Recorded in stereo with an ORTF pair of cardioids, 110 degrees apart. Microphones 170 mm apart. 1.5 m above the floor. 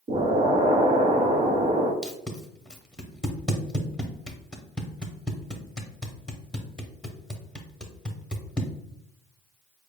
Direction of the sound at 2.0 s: 5° left.